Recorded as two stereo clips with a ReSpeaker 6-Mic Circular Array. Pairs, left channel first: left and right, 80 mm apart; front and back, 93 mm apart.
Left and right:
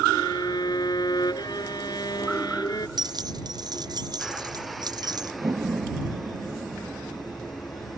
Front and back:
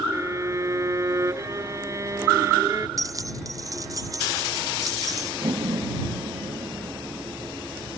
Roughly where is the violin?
Behind left.